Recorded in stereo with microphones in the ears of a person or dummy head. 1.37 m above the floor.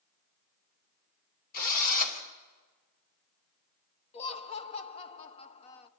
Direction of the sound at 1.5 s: 45° left (ahead or behind).